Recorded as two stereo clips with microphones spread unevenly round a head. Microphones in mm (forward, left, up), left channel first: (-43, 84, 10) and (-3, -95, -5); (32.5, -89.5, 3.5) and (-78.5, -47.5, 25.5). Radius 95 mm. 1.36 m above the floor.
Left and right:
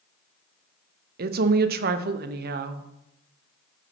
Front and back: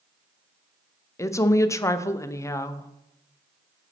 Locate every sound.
1.2 s a woman speaking: 70° right, 0.6 m